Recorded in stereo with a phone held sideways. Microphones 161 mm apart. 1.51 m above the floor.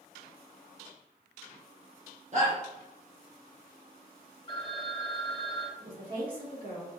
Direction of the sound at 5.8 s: 60° right (ahead or behind).